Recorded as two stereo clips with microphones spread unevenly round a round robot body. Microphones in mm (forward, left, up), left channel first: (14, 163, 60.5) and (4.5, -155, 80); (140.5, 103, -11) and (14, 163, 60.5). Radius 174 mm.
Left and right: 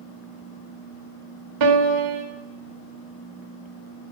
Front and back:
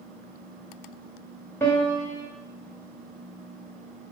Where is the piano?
100° right, 1.3 m.